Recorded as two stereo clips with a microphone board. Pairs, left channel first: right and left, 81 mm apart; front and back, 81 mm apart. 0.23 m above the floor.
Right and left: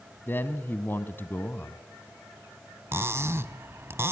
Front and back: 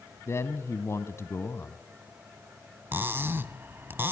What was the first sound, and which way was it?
A man speaking, 40° right.